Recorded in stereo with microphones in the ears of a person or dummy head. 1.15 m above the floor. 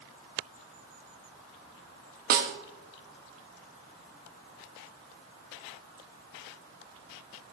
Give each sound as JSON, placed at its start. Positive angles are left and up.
{"t": 2.3, "sound": "a snare drum", "side_deg": -60, "distance_m": 1.1}